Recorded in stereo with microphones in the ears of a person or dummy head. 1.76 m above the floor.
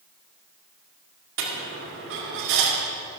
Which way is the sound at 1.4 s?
65° right (ahead or behind).